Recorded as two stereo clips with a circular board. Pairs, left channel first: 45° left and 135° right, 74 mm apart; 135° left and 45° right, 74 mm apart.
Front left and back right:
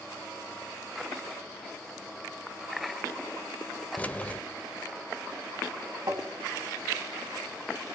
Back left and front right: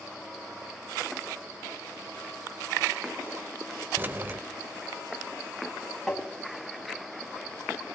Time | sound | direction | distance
4.0 | keys jangling | 5° right | 0.6 m
6.1 | tapping | 140° right | 2.5 m